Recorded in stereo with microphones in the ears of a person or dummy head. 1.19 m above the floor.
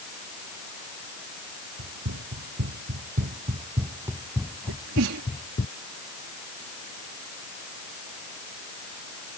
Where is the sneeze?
70° right (ahead or behind).